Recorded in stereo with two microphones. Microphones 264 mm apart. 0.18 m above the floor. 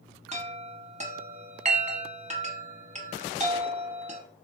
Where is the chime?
25° right (ahead or behind), 0.7 m.